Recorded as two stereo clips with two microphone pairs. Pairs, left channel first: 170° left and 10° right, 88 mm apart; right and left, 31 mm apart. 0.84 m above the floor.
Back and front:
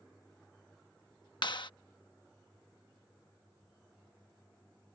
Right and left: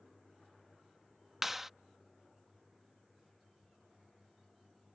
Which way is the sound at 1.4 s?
170° left.